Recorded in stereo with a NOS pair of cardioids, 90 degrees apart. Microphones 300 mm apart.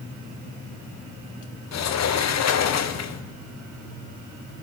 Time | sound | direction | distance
1.7 | a sliding door | 60° left | 1.5 m